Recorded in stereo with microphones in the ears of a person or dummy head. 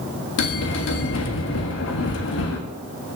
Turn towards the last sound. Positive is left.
turn(degrees=65)  # may be behind; listen again after turning